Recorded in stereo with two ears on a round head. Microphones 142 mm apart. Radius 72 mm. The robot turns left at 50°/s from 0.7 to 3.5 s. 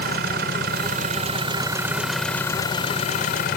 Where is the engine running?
105° right; by 3.6 s 115° left.